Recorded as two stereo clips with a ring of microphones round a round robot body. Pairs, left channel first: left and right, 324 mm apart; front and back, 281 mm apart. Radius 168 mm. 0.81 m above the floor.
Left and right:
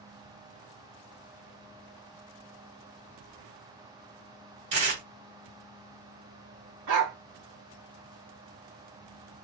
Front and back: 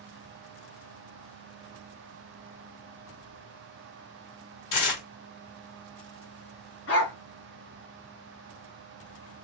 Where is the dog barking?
55° right, 1.2 m.